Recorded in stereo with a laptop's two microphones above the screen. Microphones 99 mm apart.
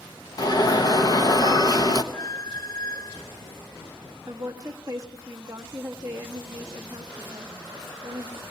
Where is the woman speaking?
30° right (ahead or behind), 1.3 m.